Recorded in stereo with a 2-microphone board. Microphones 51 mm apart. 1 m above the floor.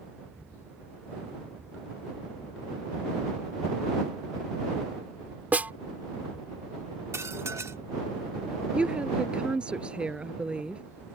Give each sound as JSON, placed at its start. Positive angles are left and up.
{"t": 5.5, "sound": "a snare drum", "side_deg": -30}
{"t": 7.1, "sound": "dishes clattering", "side_deg": -70}
{"t": 8.7, "sound": "a woman speaking", "side_deg": -20}